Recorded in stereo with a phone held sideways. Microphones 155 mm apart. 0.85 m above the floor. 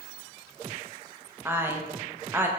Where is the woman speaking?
15° right (ahead or behind), 0.5 m.